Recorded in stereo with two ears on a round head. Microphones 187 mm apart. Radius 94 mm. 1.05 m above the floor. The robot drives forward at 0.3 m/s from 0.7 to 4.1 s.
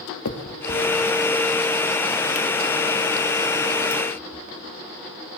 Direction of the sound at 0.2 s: 80° left.